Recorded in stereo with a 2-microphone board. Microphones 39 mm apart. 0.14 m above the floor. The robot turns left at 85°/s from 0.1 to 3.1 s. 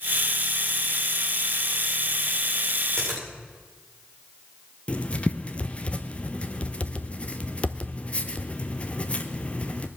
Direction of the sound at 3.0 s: 15° left (ahead or behind).